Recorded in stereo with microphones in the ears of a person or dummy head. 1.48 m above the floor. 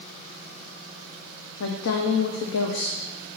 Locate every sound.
1.6 s a woman speaking: 65° left (ahead or behind), 0.6 m